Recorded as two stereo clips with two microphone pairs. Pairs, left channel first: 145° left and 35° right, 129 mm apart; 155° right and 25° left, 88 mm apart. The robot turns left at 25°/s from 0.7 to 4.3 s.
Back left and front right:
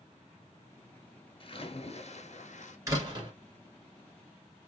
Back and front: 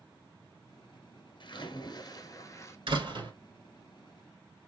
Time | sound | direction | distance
1.4 | a splash | 175° right | 0.8 m
2.9 | a door slam | 25° left | 2 m